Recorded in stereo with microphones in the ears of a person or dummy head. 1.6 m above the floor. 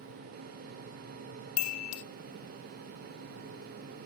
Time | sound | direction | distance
1.6 | a chime | 90° left | 0.7 m